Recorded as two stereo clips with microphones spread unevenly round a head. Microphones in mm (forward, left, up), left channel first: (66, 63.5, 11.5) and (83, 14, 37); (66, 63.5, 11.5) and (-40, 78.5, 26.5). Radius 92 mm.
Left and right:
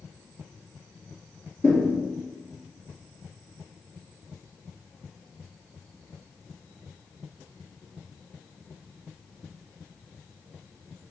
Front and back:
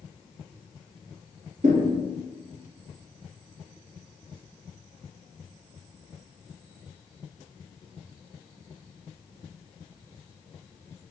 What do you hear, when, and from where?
1.6 s a thud: 170° right, 1.4 m